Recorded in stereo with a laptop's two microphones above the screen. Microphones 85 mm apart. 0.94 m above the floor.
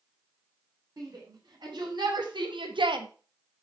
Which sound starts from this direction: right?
A shout, at 1.0 s.